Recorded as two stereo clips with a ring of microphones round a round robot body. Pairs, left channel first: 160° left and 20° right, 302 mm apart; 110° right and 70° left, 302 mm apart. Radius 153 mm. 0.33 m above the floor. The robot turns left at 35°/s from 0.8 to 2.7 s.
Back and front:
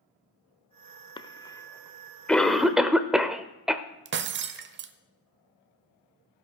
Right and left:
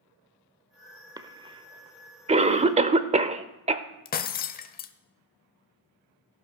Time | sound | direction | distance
1.2 | a cough | 115° left | 0.8 m
4.0 | breaking glass | 60° right | 0.9 m